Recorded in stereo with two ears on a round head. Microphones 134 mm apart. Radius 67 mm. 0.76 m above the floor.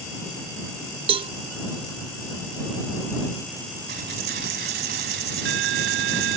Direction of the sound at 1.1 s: 35° right (ahead or behind).